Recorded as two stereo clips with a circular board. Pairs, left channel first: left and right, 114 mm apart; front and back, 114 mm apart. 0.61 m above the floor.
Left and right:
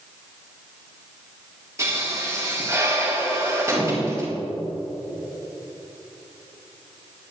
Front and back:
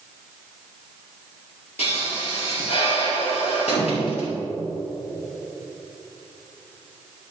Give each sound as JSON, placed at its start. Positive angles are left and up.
{"t": 1.8, "sound": "a pop", "azimuth_deg": -25, "distance_m": 4.5}